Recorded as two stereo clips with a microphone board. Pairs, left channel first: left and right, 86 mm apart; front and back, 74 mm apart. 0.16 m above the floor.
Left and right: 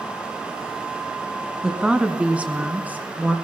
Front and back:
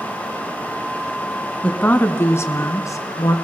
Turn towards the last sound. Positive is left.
turn(degrees=-25)